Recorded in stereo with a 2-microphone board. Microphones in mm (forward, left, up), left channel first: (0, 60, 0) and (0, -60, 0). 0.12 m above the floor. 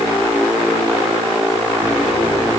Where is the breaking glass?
I don't hear breaking glass.